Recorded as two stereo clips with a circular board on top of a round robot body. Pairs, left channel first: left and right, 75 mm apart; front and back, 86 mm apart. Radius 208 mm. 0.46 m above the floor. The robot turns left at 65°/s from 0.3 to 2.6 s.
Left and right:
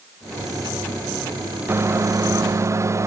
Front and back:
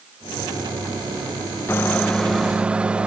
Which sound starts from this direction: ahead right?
A microwave, at 1.7 s.